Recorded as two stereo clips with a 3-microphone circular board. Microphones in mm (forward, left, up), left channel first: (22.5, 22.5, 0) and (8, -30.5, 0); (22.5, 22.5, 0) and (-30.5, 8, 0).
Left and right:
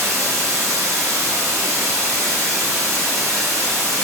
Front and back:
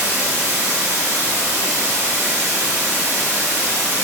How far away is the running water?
About 4 m.